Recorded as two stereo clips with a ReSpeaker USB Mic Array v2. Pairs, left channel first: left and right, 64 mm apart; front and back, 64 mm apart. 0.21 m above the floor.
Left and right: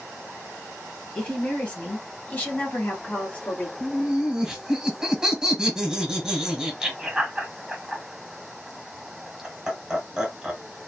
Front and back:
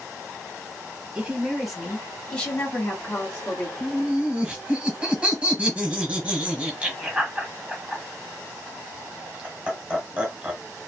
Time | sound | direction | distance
1.1 | a woman speaking | 135° left | 1.1 m
3.8 | laughter | 150° right | 1.1 m